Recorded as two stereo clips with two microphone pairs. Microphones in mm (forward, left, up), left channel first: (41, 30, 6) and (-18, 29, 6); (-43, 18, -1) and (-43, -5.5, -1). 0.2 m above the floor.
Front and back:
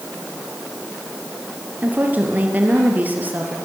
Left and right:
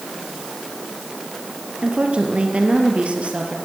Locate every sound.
1.8 s a woman speaking: 120° right, 4 m